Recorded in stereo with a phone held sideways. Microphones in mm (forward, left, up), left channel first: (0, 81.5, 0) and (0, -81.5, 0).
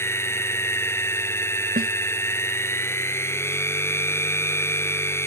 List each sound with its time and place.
0.0 s a machine running: 15° left (ahead or behind)
1.8 s a snare drum: 70° right (ahead or behind)